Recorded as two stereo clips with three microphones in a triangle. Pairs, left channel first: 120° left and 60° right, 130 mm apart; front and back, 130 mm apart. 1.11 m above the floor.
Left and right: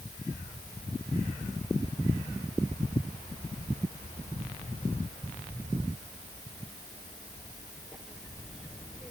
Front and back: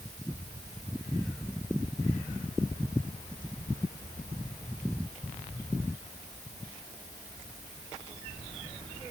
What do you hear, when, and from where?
Only background noise.